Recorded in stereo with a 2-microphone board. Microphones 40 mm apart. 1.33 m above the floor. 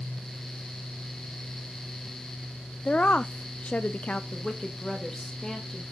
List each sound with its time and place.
2.9 s a woman speaking: 30° left (ahead or behind), 0.5 m
4.3 s a woman speaking: 10° left (ahead or behind), 1.9 m